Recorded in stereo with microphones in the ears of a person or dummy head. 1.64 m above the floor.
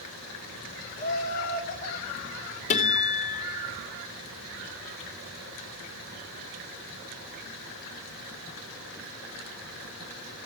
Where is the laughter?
35° left (ahead or behind), 0.8 m; by 2.6 s 55° left (ahead or behind), 1.6 m.